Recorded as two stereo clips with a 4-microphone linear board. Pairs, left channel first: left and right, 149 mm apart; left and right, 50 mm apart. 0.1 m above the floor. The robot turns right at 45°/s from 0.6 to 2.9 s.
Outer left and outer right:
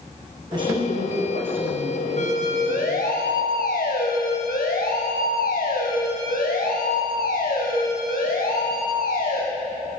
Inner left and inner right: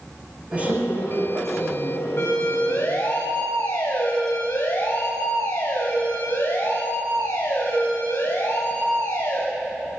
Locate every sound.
0.5 s a woman speaking: 150° right, 6 m; by 3.1 s 45° right, 6 m
2.2 s a siren: 50° left (ahead or behind), 8 m; by 9.4 s 65° left (ahead or behind), 14 m